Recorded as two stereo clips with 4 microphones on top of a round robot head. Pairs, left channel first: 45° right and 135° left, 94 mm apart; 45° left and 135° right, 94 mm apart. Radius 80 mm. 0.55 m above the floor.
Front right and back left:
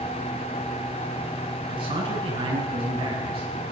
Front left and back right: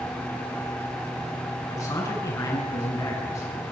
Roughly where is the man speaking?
Left.